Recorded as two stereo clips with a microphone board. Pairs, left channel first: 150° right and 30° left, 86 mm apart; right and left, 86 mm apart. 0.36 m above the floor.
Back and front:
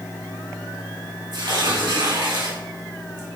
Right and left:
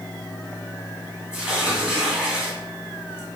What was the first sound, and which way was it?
Tearing paper, 10° left.